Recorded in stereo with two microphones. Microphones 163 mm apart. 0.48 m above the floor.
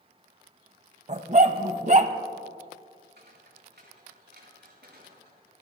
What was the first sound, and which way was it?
A dog barking, 45° right (ahead or behind).